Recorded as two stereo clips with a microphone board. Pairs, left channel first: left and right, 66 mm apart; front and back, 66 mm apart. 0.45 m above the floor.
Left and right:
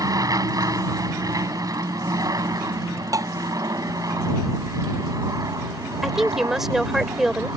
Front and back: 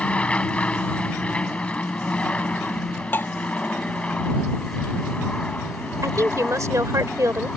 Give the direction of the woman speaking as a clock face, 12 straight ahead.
6 o'clock.